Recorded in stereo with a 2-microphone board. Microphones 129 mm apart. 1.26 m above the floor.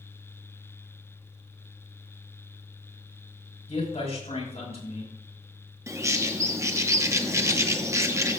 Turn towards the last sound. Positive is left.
turn(degrees=-25)  # may be behind; listen again after turning